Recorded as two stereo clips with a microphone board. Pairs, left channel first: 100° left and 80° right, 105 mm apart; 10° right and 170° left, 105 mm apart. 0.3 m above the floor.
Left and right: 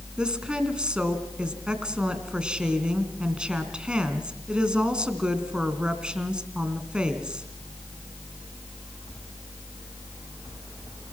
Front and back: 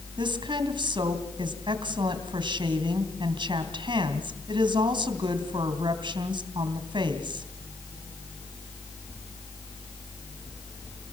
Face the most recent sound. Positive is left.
turn(degrees=-160)